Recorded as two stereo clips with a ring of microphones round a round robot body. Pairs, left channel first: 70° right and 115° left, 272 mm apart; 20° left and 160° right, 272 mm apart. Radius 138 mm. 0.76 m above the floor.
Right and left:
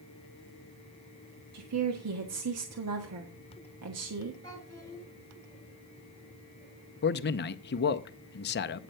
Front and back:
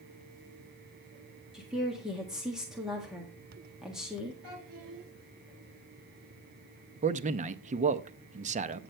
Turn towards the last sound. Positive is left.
turn(degrees=-105)